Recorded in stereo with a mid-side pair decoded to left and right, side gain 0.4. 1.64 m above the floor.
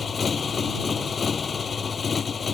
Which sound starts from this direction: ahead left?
A motorcycle, at 0.0 s.